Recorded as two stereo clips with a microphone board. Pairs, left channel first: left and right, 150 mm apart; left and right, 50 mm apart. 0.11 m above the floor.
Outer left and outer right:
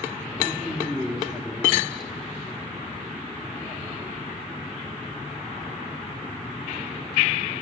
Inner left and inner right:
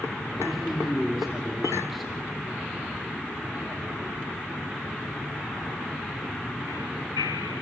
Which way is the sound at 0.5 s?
Centre (ahead or behind).